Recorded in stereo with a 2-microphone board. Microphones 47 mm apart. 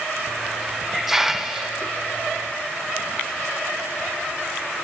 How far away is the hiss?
About 0.7 m.